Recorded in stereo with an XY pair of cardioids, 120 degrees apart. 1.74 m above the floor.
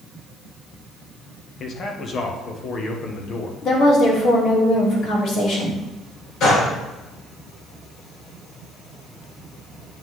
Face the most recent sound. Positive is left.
turn(degrees=65)